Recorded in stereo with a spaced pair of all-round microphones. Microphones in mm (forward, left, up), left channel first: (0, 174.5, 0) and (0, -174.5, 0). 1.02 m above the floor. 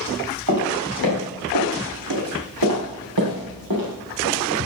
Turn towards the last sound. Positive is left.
turn(degrees=-70)  # may be behind; listen again after turning